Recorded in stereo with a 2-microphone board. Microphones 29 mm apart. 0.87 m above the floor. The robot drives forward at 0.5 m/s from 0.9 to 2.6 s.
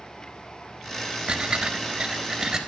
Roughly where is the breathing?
Right.